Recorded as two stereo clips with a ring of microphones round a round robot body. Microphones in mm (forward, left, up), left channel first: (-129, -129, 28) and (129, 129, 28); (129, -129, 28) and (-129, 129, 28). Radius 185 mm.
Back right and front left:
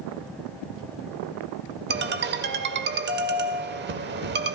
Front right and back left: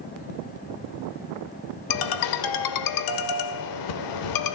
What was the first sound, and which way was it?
A ringtone, 15° right.